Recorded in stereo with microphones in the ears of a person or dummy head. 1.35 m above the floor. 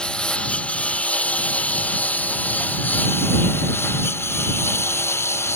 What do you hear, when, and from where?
0.0 s a lawn mower: 5° left (ahead or behind); by 5.5 s 15° left (ahead or behind)